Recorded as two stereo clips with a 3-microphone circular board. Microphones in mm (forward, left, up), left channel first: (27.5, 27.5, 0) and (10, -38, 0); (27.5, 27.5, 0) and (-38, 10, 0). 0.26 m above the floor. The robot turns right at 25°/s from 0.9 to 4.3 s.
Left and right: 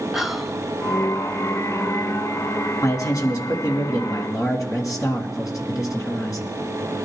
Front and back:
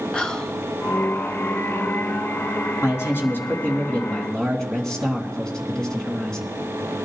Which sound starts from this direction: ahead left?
A man speaking, at 2.8 s.